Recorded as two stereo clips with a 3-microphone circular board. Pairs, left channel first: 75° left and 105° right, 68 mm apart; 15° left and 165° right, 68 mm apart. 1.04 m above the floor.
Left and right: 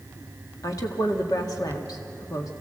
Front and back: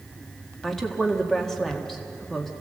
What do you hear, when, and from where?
0.6 s a woman speaking: 100° left, 1.7 m